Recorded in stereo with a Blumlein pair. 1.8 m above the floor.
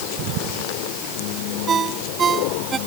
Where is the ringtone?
20° right.